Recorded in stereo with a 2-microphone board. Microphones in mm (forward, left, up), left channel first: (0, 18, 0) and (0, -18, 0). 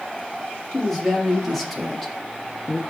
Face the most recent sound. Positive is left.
turn(degrees=5)  # may be behind; listen again after turning